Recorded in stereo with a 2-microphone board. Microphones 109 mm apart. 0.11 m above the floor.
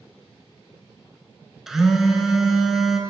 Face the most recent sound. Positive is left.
turn(degrees=-5)  # may be behind; listen again after turning